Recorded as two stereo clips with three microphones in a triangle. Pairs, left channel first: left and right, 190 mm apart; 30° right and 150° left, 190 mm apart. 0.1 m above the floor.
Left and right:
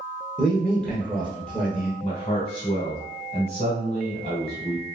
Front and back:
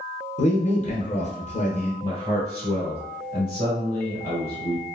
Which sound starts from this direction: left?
A man speaking, at 2.0 s.